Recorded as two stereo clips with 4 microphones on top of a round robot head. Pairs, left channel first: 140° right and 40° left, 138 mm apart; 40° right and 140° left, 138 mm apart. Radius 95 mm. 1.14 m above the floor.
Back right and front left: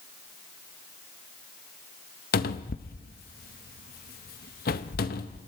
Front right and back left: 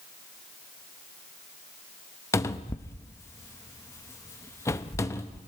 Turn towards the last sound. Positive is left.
turn(degrees=-115)